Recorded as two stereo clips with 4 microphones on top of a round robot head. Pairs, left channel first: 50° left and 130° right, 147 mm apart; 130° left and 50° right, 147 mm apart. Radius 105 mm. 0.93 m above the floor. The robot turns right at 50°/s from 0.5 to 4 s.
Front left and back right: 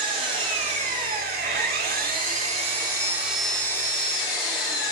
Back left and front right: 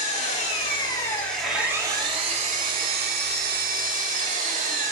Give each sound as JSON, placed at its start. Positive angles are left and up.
{"t": 0.0, "sound": "an engine running", "azimuth_deg": 175, "distance_m": 2.5}